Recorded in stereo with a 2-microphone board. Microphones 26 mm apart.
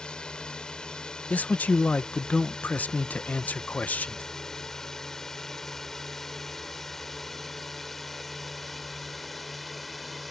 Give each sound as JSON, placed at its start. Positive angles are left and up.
{"t": 0.0, "sound": "a drone", "side_deg": 35}
{"t": 1.3, "sound": "a man speaking", "side_deg": 90}